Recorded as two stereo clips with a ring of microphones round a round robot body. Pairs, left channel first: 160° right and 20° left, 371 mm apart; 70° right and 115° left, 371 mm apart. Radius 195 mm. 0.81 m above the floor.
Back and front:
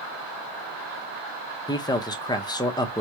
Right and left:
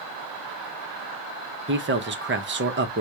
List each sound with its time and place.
1.7 s a man speaking: 135° left, 0.8 m